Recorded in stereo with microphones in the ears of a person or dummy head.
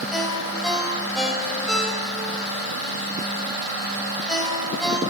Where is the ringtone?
5° left (ahead or behind), 3 m.